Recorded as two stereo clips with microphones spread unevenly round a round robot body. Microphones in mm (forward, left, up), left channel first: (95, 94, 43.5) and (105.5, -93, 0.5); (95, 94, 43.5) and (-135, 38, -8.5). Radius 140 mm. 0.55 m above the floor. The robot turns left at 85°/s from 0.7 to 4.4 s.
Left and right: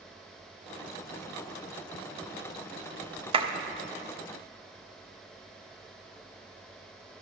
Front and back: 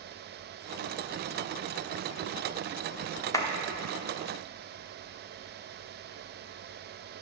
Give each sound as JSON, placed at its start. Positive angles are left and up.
{"t": 3.3, "sound": "a clap", "azimuth_deg": -70, "distance_m": 1.1}